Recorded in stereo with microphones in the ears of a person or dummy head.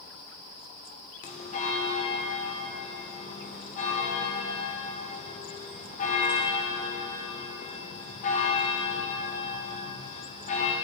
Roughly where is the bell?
Left.